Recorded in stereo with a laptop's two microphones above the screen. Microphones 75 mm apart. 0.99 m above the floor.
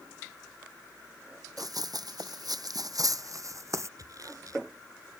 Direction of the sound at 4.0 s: 55° right (ahead or behind).